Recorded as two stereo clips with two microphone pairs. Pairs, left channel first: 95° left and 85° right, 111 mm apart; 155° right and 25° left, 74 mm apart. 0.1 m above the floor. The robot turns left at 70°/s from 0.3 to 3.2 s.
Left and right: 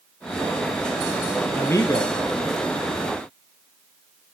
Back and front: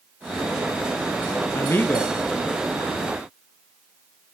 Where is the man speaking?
170° left, 1.9 m; by 2.1 s 125° left, 1.9 m.